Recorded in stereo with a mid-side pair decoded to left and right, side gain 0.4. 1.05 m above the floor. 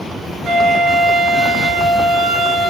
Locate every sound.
0.4 s a flute: 70° right, 3.5 m